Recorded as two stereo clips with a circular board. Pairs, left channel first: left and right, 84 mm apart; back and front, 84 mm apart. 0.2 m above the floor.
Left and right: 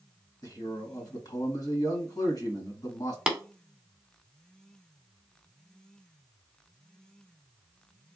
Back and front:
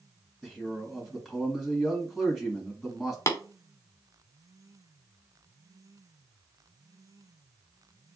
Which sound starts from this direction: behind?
Tapping, at 3.3 s.